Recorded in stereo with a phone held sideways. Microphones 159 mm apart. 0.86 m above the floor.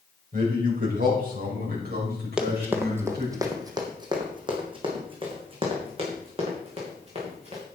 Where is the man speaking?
55° right (ahead or behind), 4.5 m; by 3.4 s 75° right (ahead or behind), 6 m.